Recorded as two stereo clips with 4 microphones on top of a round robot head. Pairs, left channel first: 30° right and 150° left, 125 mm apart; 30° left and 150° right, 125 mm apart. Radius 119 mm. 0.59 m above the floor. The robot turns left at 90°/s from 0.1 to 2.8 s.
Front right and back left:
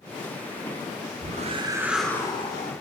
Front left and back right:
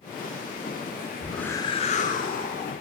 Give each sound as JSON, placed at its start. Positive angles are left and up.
{"t": 1.2, "sound": "a whoosh", "azimuth_deg": 130, "distance_m": 0.7}